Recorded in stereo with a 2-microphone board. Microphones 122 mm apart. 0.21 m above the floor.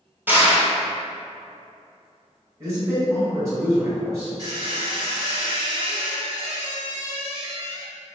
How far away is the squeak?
About 0.9 m.